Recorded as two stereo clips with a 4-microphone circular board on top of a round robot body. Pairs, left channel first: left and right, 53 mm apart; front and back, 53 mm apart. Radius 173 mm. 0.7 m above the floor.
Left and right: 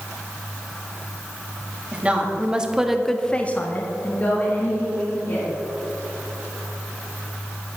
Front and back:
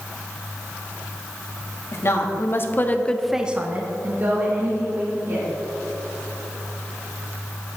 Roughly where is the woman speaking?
Ahead right.